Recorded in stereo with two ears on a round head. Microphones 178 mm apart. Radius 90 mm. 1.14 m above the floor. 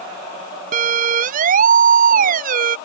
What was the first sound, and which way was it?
A siren, 40° right (ahead or behind).